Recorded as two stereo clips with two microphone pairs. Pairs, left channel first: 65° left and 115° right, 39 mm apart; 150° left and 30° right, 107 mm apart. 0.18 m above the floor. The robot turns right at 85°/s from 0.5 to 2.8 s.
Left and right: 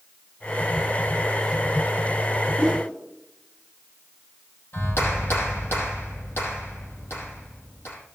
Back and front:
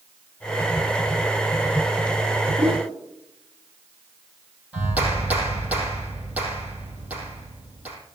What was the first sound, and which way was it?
A whoosh, 30° right.